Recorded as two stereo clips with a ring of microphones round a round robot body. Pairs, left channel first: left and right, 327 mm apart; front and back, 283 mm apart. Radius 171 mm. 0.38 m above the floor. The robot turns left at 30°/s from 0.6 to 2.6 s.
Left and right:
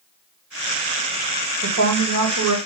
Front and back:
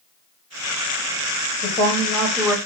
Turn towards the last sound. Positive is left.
turn(degrees=-95)